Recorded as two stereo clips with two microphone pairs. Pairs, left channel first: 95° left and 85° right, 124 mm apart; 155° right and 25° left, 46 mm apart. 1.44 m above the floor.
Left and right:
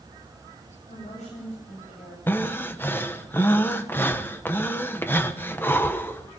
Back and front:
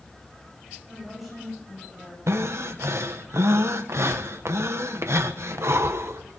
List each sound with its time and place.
0.9 s a woman speaking: 115° left, 9 m
2.3 s breathing: 25° left, 1.3 m